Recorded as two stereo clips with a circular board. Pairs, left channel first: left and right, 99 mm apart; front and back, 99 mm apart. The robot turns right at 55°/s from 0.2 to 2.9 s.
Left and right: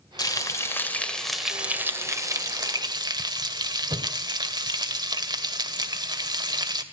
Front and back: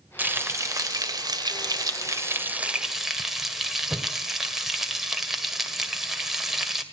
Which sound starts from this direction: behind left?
Frying, at 0.2 s.